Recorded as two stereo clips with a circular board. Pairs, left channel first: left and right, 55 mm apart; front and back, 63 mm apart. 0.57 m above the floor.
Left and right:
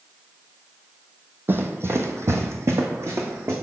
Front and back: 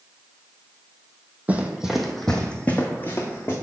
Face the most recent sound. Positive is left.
turn(degrees=-50)